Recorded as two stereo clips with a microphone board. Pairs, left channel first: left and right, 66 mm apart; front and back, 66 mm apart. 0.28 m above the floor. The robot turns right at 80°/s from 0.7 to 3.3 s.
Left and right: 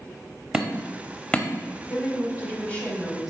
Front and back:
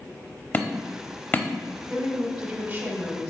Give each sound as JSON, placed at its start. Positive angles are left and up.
{"t": 0.5, "sound": "hammering", "azimuth_deg": -20, "distance_m": 0.8}
{"t": 1.9, "sound": "a woman speaking", "azimuth_deg": 80, "distance_m": 1.8}